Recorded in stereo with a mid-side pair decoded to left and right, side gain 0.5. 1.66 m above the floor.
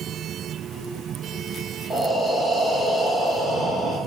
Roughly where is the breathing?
Ahead.